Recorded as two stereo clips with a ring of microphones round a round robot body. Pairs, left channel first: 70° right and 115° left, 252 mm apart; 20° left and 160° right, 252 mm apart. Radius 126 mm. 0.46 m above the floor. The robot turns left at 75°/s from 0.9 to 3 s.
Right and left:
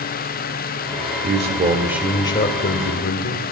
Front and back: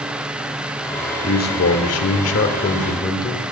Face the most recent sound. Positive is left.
turn(degrees=-50)